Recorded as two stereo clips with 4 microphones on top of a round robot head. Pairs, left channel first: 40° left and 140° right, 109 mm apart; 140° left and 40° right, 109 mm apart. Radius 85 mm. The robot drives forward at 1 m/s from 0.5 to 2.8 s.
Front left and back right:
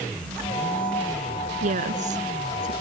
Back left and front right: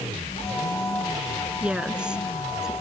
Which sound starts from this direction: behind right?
A woman speaking, at 1.6 s.